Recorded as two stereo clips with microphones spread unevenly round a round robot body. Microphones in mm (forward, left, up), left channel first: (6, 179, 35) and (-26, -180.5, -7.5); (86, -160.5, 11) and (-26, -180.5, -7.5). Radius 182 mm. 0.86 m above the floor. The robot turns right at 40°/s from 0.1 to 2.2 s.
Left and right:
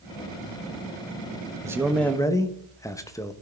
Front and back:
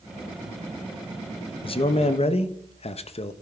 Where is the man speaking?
25° right, 0.7 m; by 3.3 s straight ahead, 0.7 m.